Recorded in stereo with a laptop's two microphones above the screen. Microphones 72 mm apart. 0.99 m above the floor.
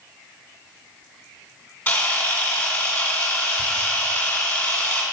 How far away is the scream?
I don't hear a scream.